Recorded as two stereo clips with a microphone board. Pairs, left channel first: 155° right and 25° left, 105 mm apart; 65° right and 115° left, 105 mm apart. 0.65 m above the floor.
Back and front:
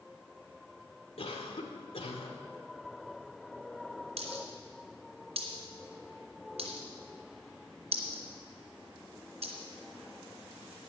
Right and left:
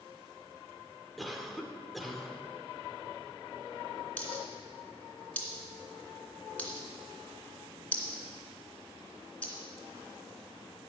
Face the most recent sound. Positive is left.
turn(degrees=10)